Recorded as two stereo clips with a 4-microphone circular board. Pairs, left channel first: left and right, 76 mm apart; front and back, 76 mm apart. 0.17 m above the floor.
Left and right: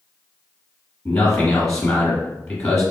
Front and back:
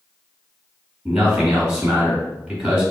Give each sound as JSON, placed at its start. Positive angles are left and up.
{"t": 1.1, "sound": "a man speaking", "azimuth_deg": 155, "distance_m": 1.6}